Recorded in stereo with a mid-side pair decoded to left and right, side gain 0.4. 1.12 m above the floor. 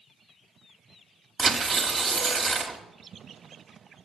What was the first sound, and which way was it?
Tearing paper, 40° right.